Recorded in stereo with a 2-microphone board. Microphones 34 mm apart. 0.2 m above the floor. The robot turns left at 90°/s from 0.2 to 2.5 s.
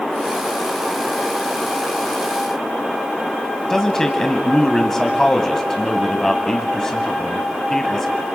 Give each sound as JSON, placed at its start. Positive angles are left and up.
{"t": 3.7, "sound": "a man speaking", "side_deg": 15, "distance_m": 1.0}